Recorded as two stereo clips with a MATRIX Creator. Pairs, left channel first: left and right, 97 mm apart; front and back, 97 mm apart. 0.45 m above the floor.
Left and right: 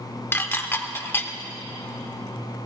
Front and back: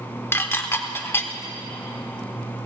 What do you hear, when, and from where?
0.3 s dishes clattering: 45° left, 0.6 m